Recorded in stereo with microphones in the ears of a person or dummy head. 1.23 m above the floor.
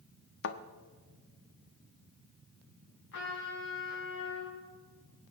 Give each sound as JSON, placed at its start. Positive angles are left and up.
{"t": 0.4, "sound": "a thud", "side_deg": 65, "distance_m": 1.1}
{"t": 3.1, "sound": "a trumpet", "side_deg": 60, "distance_m": 6.0}